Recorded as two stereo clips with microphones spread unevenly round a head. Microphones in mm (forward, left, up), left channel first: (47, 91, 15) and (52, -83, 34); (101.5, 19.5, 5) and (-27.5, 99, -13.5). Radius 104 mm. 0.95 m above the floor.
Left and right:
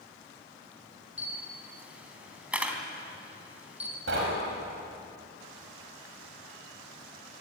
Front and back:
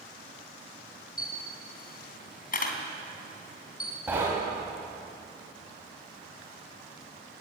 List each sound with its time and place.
1.2 s a camera shutter: 5° right, 3.5 m
4.1 s knocking: 130° right, 5.5 m